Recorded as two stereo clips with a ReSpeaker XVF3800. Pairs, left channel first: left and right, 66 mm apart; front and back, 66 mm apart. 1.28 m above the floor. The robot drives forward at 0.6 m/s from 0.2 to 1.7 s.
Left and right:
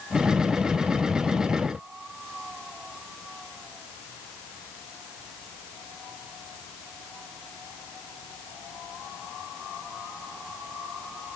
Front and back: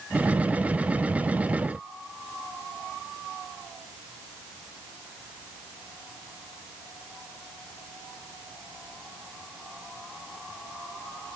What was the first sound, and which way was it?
Only background noise.